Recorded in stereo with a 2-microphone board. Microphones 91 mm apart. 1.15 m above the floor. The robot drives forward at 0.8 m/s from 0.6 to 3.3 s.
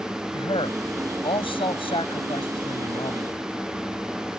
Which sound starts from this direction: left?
A man speaking, at 0.3 s.